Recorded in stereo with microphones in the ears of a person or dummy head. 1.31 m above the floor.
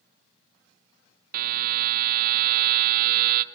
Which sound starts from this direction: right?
A buzzer, at 1.3 s.